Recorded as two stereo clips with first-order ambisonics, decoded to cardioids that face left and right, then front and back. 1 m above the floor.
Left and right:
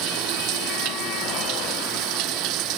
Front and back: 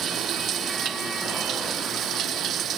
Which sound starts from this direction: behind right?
Running water, at 0.0 s.